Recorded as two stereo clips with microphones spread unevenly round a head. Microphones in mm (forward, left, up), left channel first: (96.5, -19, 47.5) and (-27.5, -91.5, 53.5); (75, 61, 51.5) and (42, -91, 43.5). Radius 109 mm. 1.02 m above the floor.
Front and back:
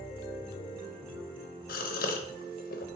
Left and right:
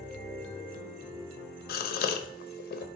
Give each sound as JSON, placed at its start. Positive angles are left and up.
{"t": 1.7, "sound": "a gasp", "azimuth_deg": 65, "distance_m": 0.5}